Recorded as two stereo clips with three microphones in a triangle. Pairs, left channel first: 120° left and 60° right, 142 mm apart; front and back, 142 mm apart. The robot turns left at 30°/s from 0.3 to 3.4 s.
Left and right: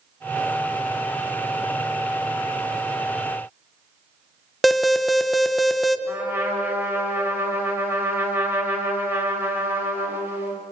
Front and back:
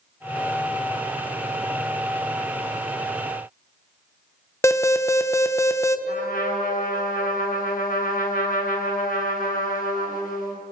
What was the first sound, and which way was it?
An alarm, 30° left.